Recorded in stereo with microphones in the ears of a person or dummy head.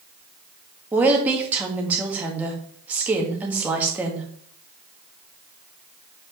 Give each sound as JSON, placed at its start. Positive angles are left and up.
{"t": 0.9, "sound": "a woman speaking", "side_deg": -10, "distance_m": 1.7}